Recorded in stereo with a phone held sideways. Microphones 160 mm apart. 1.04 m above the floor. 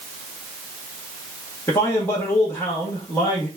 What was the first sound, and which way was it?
A man speaking, 15° left (ahead or behind).